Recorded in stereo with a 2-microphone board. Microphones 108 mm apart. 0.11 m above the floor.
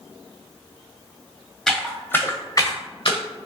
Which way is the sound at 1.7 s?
Centre (ahead or behind).